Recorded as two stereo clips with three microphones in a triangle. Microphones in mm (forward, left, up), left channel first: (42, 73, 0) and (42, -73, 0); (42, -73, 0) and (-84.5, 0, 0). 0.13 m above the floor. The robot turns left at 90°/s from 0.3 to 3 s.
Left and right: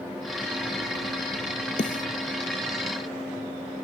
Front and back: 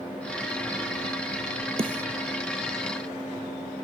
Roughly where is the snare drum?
Left.